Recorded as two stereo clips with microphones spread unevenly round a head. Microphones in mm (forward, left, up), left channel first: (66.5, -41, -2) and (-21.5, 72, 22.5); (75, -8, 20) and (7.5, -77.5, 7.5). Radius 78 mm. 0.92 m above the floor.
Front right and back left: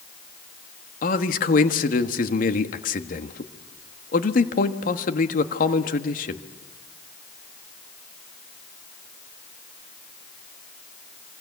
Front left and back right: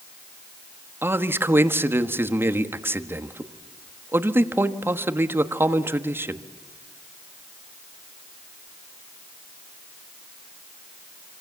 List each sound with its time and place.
1.0 s a man speaking: 70° right, 1.4 m